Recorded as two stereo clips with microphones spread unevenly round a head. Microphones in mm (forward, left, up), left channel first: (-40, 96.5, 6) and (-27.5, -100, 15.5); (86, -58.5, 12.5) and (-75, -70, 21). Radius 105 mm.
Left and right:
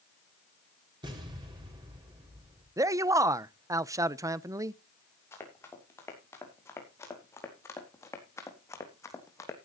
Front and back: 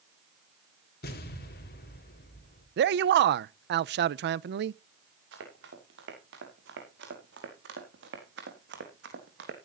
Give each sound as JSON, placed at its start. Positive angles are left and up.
{"t": 1.0, "sound": "an explosion", "azimuth_deg": -15, "distance_m": 3.5}
{"t": 2.8, "sound": "a man speaking", "azimuth_deg": -160, "distance_m": 0.5}
{"t": 5.3, "sound": "running footsteps", "azimuth_deg": 170, "distance_m": 6.5}